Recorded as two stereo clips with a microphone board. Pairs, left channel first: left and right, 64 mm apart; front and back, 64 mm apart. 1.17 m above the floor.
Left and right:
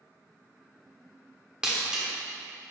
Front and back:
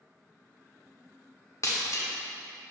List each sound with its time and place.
1.6 s breaking glass: 15° right, 1.1 m